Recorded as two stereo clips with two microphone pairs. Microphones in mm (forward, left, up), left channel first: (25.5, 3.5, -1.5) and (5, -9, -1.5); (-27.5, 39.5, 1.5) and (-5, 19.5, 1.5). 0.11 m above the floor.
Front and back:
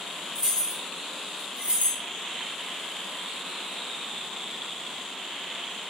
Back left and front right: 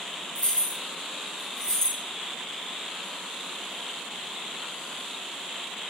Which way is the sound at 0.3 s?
160° left.